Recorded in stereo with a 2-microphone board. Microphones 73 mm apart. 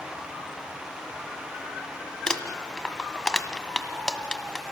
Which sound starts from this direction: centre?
Crumpling, at 2.3 s.